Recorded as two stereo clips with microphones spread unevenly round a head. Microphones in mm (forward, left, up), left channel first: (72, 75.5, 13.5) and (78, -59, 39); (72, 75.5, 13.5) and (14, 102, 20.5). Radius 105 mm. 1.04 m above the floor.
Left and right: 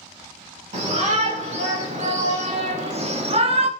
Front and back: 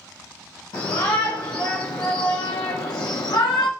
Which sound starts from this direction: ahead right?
A shout, at 0.7 s.